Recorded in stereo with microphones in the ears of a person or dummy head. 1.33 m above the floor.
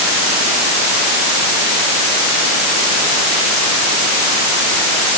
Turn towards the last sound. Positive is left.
No sound to turn to.